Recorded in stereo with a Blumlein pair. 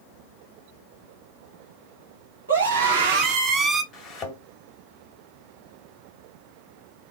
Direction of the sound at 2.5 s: 70° right.